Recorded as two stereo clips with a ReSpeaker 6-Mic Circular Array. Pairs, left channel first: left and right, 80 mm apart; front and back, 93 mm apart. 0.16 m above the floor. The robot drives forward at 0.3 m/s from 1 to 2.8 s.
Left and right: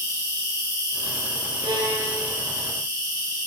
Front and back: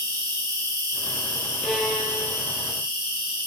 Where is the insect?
135° left, 1.1 m; by 3.5 s 150° left, 1.5 m.